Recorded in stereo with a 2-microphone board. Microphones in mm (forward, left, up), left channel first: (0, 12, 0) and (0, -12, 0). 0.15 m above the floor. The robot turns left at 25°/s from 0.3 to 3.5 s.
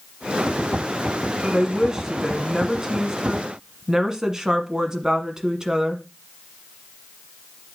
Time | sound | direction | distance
1.4 | a woman speaking | 15° right (ahead or behind) | 1.2 m